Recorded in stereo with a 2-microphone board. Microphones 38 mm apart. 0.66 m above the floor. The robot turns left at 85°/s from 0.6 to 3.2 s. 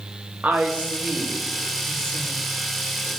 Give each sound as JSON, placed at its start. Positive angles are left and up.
{"t": 0.4, "sound": "a woman speaking", "side_deg": -45, "distance_m": 0.7}